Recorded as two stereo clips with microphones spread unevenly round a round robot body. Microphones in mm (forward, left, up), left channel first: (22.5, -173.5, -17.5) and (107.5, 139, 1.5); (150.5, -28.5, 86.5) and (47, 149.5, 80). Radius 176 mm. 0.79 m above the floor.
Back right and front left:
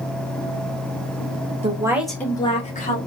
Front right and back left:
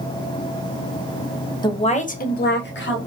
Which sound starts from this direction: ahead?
A woman speaking, at 1.6 s.